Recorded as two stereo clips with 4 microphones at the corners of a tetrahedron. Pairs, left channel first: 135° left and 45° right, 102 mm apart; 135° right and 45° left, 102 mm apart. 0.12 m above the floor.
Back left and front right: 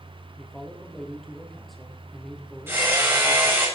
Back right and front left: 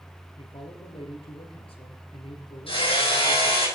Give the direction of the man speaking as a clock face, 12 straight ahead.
5 o'clock.